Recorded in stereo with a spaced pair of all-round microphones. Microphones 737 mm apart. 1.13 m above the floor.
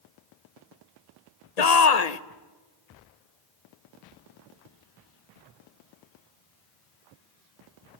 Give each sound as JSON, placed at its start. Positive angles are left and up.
{"t": 1.6, "sound": "a shout", "side_deg": 60, "distance_m": 1.0}